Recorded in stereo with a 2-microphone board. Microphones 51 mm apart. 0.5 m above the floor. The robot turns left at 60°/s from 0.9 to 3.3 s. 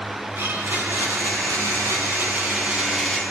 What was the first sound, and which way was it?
A blender, 55° right.